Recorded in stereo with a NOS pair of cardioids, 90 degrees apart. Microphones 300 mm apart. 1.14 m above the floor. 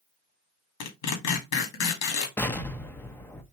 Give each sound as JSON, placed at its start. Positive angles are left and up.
{"t": 0.8, "sound": "tearing paper", "azimuth_deg": 70, "distance_m": 1.9}
{"t": 2.4, "sound": "an explosion", "azimuth_deg": 5, "distance_m": 0.8}